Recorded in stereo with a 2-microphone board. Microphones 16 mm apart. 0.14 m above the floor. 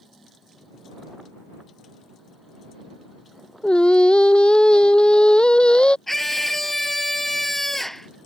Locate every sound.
3.6 s singing: 65° left (ahead or behind)
6.1 s a scream: 15° left (ahead or behind)